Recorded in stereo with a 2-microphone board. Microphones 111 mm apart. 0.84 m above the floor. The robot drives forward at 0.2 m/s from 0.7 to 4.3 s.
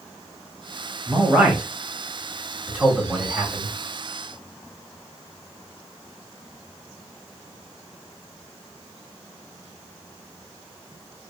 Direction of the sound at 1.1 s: 15° right (ahead or behind).